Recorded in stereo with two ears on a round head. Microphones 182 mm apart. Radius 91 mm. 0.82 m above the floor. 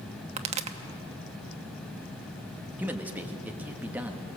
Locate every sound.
0.4 s a pop: 30° right (ahead or behind), 0.9 m
2.8 s a man speaking: 10° right (ahead or behind), 1.4 m